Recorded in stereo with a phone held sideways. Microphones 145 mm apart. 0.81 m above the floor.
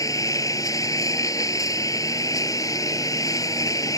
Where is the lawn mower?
20° left (ahead or behind).